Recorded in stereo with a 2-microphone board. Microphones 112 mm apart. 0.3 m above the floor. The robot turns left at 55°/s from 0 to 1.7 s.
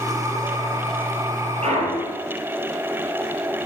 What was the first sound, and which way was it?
A clunk, 70° right (ahead or behind).